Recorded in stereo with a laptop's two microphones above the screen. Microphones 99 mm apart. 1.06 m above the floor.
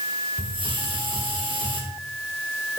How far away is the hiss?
About 1.7 m.